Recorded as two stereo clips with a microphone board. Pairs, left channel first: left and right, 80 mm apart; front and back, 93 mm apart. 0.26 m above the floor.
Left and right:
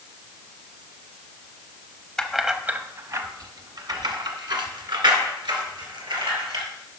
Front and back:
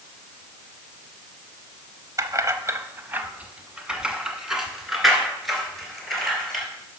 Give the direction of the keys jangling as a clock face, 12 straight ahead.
6 o'clock.